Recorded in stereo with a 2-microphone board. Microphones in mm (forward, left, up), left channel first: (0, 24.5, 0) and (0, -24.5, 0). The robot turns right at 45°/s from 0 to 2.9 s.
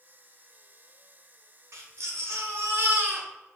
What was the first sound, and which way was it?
A baby crying, 100° right.